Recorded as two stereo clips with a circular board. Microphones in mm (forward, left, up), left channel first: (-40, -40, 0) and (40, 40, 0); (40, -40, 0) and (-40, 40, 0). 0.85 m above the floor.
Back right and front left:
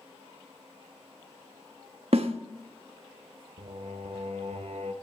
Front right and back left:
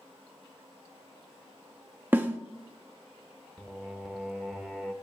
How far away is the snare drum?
About 0.9 m.